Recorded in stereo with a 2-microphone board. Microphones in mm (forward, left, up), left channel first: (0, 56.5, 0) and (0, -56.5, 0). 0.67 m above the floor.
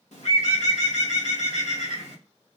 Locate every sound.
0.1 s a bird: 70° left (ahead or behind), 0.8 m